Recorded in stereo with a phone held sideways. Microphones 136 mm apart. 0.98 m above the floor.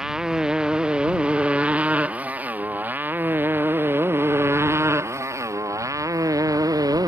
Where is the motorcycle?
5° right (ahead or behind); by 7.1 s 30° right (ahead or behind).